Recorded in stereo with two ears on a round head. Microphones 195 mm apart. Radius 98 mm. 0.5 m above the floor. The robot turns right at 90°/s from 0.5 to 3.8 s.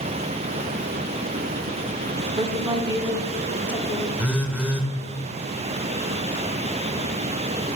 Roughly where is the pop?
I don't hear a pop.